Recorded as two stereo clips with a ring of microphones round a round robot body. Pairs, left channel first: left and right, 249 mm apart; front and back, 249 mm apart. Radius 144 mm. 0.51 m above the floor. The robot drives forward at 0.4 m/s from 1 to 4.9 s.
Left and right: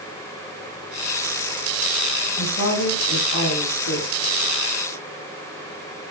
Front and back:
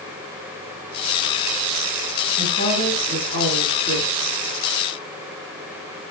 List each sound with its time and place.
2.4 s a woman speaking: 130° left, 6 m; by 4.1 s 135° left, 6.5 m